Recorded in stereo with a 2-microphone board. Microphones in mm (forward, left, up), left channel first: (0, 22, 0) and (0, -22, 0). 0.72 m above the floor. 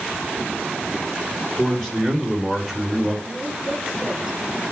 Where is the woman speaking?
10° right (ahead or behind), 7 m.